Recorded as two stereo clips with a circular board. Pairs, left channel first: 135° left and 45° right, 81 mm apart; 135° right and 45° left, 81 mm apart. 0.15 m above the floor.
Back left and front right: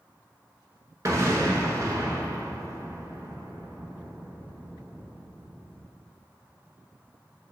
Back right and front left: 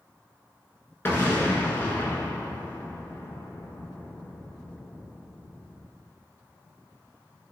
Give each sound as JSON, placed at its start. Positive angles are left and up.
{"t": 1.1, "sound": "an explosion", "azimuth_deg": -80, "distance_m": 0.6}